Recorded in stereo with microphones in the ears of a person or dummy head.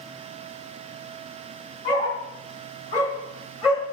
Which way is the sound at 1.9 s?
30° left (ahead or behind).